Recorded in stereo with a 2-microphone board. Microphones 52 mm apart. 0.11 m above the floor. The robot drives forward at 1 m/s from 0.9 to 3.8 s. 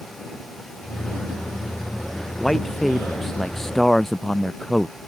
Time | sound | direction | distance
2.4 | a man speaking | 10° left (ahead or behind) | ?